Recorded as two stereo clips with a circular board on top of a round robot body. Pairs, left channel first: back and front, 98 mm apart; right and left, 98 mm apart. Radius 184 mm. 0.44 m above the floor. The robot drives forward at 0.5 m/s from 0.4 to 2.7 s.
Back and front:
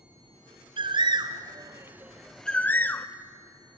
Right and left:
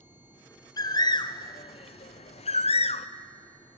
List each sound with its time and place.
0.8 s a bird: 35° right, 1.0 m; by 3.1 s 105° right, 0.6 m